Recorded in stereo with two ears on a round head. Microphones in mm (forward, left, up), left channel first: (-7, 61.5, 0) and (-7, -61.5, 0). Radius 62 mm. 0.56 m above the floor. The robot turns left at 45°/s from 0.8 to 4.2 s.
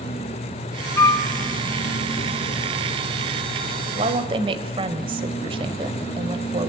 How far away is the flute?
About 1.3 m.